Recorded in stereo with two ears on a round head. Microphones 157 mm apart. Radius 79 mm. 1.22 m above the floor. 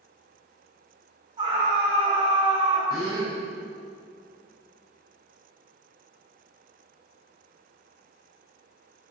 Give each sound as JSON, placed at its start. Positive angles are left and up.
{"t": 1.4, "sound": "a scream", "side_deg": -30, "distance_m": 3.0}
{"t": 2.9, "sound": "a gasp", "side_deg": 25, "distance_m": 2.5}